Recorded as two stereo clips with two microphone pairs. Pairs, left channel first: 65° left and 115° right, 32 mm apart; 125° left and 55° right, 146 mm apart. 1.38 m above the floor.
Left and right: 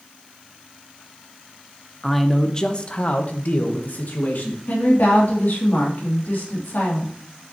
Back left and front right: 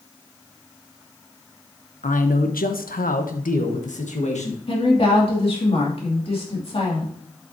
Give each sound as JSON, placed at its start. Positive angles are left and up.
{"t": 2.0, "sound": "a man speaking", "azimuth_deg": 155, "distance_m": 0.9}
{"t": 4.7, "sound": "a woman speaking", "azimuth_deg": 75, "distance_m": 2.5}